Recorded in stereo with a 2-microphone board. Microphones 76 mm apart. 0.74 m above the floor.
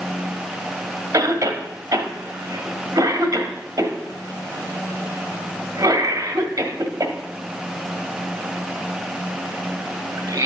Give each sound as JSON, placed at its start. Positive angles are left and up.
{"t": 1.1, "sound": "a cough", "side_deg": -45, "distance_m": 1.6}